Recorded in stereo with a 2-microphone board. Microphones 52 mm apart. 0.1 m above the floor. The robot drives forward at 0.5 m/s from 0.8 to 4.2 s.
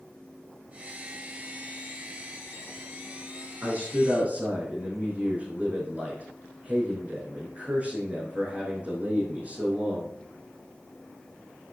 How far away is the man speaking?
About 4 m.